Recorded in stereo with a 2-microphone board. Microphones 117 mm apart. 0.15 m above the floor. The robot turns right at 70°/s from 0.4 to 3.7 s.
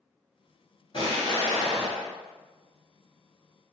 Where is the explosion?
55° left, 1.4 m; by 2.1 s 135° left, 1.4 m.